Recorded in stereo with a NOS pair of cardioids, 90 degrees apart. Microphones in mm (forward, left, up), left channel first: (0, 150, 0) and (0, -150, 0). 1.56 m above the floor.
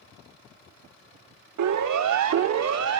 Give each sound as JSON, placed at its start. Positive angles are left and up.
{"t": 1.6, "sound": "a siren", "azimuth_deg": -65, "distance_m": 3.5}